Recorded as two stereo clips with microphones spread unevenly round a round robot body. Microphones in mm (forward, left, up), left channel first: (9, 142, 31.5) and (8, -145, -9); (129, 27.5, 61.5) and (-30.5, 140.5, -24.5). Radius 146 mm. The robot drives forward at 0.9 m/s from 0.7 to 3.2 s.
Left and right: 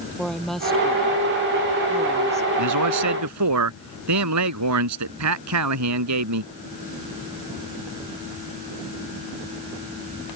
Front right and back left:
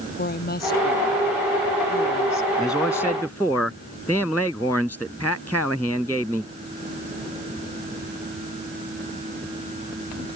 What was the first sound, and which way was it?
A woman speaking, straight ahead.